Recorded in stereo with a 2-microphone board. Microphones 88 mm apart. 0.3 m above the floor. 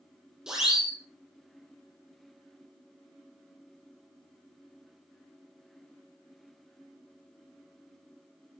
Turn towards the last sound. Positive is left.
turn(degrees=-5)  # may be behind; listen again after turning